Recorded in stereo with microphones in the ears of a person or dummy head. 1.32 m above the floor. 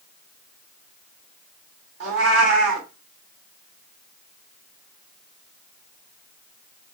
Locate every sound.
2.0 s a cat meowing: 70° right (ahead or behind), 2.0 m